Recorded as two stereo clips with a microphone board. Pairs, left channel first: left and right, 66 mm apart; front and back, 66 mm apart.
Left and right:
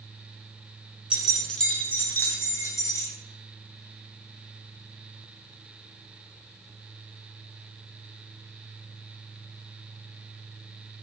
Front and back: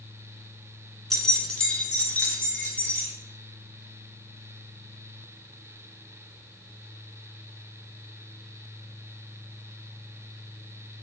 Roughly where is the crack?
I don't hear a crack.